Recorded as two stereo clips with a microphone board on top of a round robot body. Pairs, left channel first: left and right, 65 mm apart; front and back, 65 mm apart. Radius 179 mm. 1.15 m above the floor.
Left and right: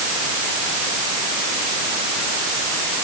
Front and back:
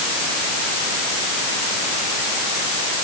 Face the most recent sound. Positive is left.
No sound to turn to.